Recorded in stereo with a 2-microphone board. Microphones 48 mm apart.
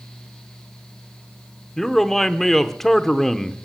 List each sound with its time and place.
1.8 s a man speaking: 10° left (ahead or behind), 0.7 m